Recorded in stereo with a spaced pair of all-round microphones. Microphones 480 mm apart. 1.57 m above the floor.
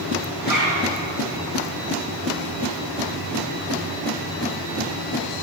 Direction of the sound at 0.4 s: 45° right (ahead or behind).